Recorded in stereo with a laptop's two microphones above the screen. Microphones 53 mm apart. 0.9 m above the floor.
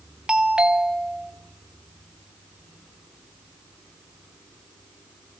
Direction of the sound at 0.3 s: 15° right (ahead or behind).